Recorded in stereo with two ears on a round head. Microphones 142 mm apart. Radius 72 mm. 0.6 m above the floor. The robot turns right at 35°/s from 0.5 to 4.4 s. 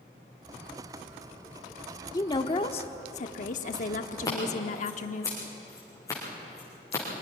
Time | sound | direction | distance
2.1 | a woman speaking | 30° left | 1.2 m
4.2 | scissors | 25° left (ahead or behind) | 8 m